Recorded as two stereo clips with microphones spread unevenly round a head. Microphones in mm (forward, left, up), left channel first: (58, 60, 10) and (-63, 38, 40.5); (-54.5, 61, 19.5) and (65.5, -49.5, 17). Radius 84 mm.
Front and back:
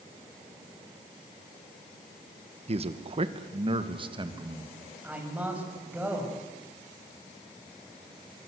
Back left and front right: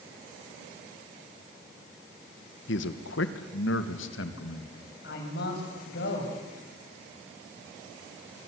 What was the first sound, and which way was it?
A man speaking, 150° left.